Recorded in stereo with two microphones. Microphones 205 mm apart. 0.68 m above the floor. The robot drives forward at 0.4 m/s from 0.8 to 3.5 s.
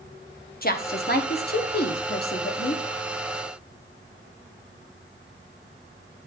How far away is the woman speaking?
About 1.0 m.